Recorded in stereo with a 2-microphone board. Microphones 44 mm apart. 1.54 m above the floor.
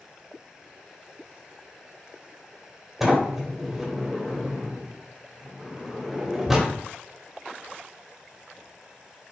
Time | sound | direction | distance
3.0 | a sliding door | 5° right (ahead or behind) | 2 m